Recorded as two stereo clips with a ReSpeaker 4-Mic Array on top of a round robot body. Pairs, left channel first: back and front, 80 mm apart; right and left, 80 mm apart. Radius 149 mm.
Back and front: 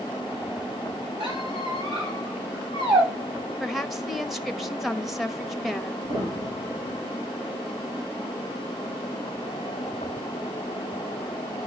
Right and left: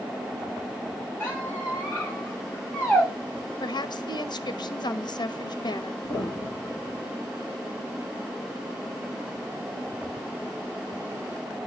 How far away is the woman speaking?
About 1.2 m.